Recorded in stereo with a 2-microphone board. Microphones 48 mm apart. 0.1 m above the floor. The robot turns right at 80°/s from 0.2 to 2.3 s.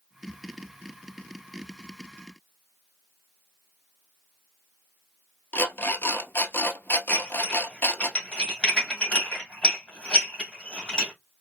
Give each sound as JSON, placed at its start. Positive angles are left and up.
{"t": 5.5, "sound": "an alarm clock", "side_deg": 50, "distance_m": 1.1}
{"t": 7.1, "sound": "dishes clattering", "side_deg": 25, "distance_m": 2.5}